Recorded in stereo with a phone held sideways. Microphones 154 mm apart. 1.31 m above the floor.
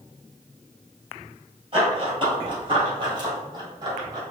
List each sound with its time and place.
1.7 s running footsteps: 35° right (ahead or behind), 1.7 m; by 4.2 s 30° right (ahead or behind), 3 m